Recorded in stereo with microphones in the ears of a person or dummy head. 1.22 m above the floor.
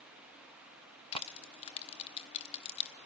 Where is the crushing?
35° left (ahead or behind), 1.4 m.